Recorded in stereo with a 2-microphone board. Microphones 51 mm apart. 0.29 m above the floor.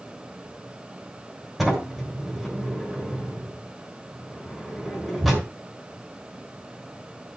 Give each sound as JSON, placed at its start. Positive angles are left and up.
{"t": 1.6, "sound": "a sliding door", "side_deg": 0, "distance_m": 3.5}